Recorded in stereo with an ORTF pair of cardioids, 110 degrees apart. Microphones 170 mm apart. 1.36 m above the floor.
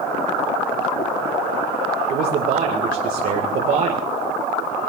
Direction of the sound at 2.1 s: 65° right.